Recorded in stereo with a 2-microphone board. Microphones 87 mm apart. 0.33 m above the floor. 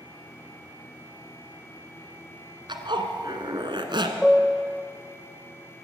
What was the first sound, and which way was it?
A zipper, 65° right (ahead or behind).